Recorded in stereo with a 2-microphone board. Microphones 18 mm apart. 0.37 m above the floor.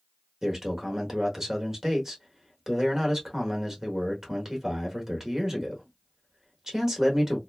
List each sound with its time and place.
0.4 s a man speaking: 25° right (ahead or behind), 1.0 m